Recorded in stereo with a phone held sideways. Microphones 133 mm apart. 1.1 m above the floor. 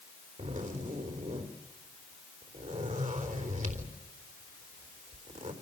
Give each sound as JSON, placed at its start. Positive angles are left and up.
{"t": 0.4, "sound": "a zipper", "side_deg": -70, "distance_m": 3.5}